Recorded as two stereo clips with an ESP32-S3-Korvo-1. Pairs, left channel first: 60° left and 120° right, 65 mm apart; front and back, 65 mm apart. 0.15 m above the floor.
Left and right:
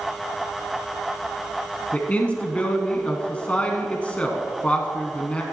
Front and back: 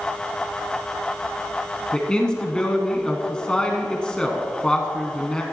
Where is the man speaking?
50° left, 1.0 m.